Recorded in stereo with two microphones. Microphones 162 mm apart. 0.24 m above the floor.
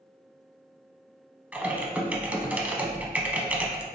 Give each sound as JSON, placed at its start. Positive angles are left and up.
{"t": 1.5, "sound": "typing on a keyboard", "side_deg": -10, "distance_m": 0.6}